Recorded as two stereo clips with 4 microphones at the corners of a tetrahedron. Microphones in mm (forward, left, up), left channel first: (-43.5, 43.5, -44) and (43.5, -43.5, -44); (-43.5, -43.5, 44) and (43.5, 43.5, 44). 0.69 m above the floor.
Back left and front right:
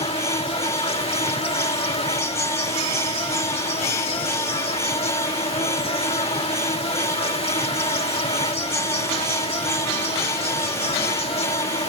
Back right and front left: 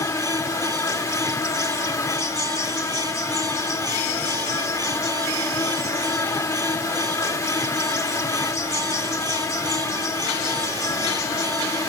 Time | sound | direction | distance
0.0 | an insect | 165° left | ?